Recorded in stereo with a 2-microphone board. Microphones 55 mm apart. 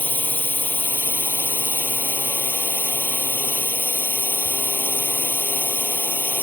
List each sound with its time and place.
0.0 s a drone: 35° left (ahead or behind)